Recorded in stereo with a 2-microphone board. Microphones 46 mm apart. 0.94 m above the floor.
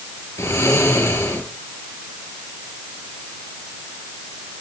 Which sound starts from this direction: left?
Snoring, at 0.4 s.